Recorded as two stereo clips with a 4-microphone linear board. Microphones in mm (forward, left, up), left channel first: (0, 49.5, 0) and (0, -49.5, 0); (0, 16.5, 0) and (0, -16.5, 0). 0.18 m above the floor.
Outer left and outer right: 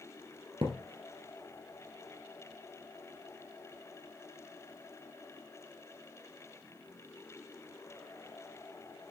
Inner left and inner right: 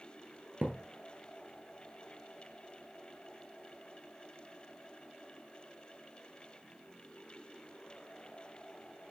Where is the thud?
70° right (ahead or behind), 1.6 m.